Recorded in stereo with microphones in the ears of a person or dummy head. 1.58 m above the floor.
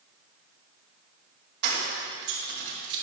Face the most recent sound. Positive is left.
turn(degrees=-55)  # may be behind; listen again after turning